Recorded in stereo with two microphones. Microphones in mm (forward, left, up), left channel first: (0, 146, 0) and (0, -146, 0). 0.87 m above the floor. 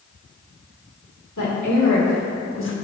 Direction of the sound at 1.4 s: 80° left.